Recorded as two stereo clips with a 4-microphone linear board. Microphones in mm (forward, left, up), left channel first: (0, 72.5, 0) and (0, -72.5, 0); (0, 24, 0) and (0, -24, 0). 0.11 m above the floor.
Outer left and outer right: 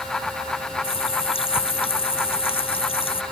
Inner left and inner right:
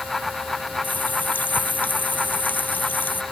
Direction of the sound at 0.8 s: 40° left (ahead or behind).